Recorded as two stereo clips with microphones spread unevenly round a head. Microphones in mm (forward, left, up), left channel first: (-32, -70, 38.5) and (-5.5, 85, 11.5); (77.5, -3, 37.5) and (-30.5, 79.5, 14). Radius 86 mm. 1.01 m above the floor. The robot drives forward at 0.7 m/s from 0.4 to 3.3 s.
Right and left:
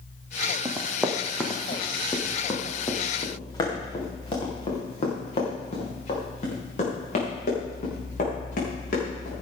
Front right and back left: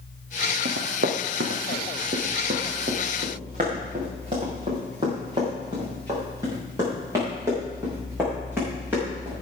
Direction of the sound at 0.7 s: 155° left.